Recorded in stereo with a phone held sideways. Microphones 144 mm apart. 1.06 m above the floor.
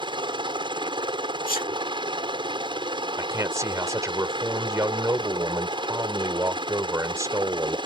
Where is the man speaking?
20° right (ahead or behind).